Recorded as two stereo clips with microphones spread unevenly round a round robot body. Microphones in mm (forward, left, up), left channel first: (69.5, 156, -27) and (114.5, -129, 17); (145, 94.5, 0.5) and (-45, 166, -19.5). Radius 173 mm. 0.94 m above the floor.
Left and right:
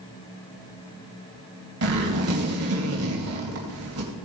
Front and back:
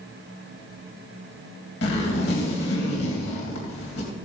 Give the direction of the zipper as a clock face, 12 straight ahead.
1 o'clock.